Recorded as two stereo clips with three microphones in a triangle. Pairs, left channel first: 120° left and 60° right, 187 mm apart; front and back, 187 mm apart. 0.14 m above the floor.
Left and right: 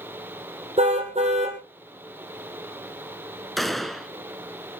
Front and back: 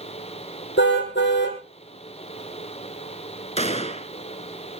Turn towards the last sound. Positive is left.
turn(degrees=30)